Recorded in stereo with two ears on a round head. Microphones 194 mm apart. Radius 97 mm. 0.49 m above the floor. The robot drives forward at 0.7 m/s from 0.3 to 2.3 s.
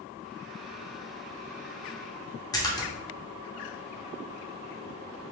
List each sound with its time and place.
2.5 s a splash: 15° left (ahead or behind), 0.8 m